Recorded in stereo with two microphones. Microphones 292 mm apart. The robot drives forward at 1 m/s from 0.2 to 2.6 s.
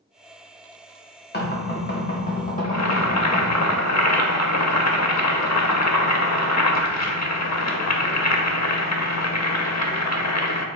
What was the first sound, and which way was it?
Knocking, 35° left (ahead or behind).